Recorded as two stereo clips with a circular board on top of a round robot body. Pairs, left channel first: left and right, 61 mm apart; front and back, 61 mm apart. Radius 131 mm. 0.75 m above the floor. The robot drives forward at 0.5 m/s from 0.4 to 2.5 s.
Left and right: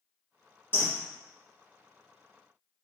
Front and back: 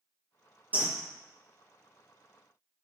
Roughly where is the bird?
Behind left.